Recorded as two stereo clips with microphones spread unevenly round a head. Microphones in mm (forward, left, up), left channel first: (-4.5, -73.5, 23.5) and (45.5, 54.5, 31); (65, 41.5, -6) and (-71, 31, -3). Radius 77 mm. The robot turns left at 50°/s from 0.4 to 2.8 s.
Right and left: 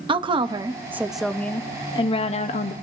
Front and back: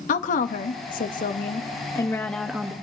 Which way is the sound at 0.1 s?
20° left.